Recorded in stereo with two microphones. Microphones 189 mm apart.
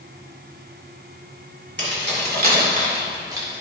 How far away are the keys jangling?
About 2 m.